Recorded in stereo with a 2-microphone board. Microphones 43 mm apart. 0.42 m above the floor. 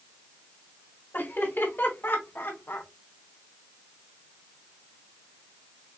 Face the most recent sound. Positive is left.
turn(degrees=60)  # may be behind; listen again after turning